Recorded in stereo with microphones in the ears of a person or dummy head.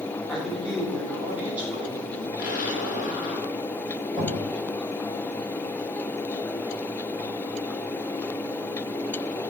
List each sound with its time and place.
0.3 s a man speaking: 5° right (ahead or behind), 5.5 m; by 2.3 s 20° right (ahead or behind), 5 m
2.4 s an explosion: 45° left (ahead or behind), 5.5 m
4.1 s knocking: 5° left (ahead or behind), 8 m